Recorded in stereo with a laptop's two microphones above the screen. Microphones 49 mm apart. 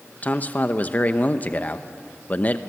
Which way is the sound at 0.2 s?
35° left (ahead or behind).